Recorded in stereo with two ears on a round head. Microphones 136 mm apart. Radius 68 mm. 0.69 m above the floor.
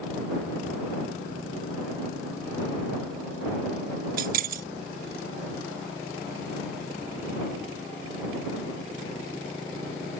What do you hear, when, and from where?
4.2 s keys jangling: 60° right (ahead or behind)